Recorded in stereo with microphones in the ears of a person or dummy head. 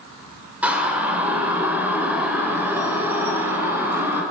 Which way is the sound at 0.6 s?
10° right (ahead or behind).